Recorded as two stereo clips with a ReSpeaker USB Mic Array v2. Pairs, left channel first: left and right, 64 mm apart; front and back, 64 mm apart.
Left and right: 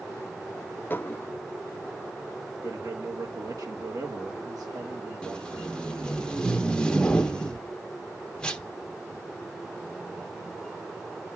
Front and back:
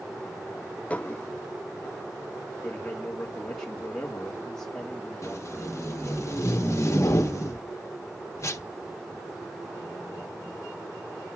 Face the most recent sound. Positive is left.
turn(degrees=20)